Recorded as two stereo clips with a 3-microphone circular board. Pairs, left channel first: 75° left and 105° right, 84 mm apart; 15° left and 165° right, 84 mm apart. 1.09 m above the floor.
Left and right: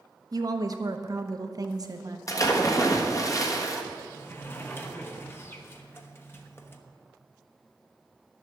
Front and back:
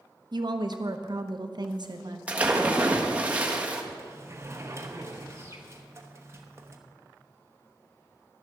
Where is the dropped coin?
No dropped coin in this recording.